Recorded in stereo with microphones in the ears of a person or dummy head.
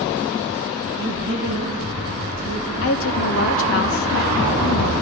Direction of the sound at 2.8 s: 65° left (ahead or behind).